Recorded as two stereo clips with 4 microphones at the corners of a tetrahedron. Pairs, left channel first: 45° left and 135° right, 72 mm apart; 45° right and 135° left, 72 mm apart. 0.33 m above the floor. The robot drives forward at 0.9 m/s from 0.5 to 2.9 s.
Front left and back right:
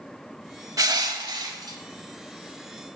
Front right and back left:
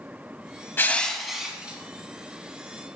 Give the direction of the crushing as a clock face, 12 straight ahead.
3 o'clock.